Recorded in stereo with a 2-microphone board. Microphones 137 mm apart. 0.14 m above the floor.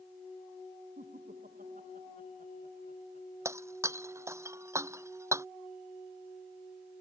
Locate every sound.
1.0 s laughter: 85° right
3.5 s breaking glass: 20° right (ahead or behind)